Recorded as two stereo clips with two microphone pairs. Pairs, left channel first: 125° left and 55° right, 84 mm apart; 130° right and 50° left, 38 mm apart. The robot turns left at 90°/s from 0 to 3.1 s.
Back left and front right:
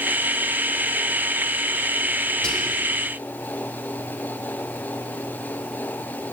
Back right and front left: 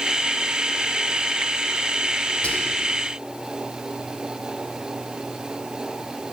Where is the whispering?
155° right, 1.1 m; by 2.9 s 165° left, 1.1 m.